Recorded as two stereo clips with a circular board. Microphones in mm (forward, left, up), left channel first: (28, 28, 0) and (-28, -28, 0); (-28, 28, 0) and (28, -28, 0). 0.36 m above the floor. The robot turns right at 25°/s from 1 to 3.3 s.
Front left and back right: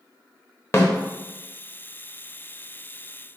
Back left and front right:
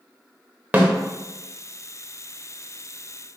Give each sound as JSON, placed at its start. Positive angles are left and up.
{"t": 0.7, "sound": "a snare drum", "azimuth_deg": 10, "distance_m": 0.7}